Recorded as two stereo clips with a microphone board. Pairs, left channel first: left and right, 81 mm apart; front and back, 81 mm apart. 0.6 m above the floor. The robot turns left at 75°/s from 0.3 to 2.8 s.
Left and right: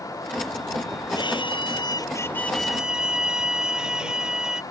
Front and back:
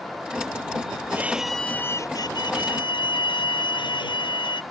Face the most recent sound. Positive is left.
turn(degrees=-10)